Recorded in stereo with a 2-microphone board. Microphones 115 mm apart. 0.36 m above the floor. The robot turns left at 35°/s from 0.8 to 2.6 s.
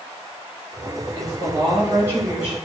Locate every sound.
1.1 s a woman speaking: 125° right, 1.5 m; by 2.6 s 175° right, 1.5 m